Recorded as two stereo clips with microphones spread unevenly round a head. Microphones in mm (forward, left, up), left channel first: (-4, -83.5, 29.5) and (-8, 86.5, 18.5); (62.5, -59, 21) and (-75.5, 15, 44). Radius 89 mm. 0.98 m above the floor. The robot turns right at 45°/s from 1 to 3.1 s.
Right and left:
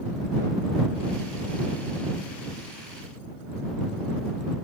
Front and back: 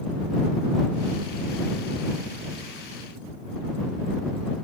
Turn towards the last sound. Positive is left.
No sound to turn to.